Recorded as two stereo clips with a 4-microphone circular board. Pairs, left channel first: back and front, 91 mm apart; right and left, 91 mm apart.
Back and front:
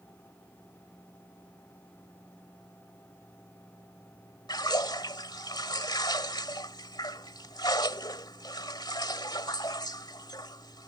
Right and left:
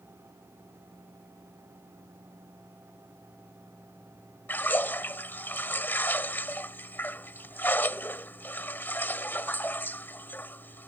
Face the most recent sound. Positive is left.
turn(degrees=-155)